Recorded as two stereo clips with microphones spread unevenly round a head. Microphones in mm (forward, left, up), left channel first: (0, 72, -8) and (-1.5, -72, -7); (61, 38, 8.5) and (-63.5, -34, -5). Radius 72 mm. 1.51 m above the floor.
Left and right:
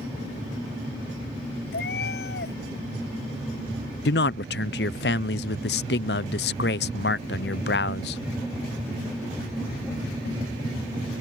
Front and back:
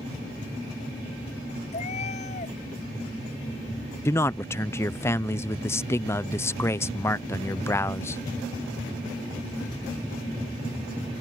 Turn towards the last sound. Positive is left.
turn(degrees=105)